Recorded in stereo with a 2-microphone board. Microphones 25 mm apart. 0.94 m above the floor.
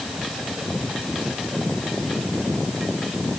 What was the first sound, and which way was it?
Only background noise.